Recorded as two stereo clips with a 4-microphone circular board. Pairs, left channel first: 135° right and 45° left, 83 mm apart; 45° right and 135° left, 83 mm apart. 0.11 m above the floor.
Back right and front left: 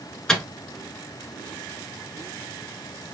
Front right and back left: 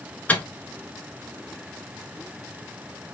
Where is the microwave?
65° right, 0.9 m.